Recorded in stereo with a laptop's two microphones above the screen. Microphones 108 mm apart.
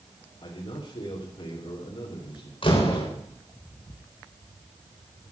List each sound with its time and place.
0.4 s a man speaking: 60° left (ahead or behind), 4 m
2.6 s a door slam: 55° left (ahead or behind), 3.5 m